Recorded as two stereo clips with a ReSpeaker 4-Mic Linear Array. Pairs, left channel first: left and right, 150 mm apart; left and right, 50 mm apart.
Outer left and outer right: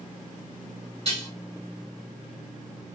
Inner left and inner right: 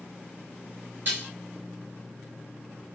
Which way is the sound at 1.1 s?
45° right (ahead or behind).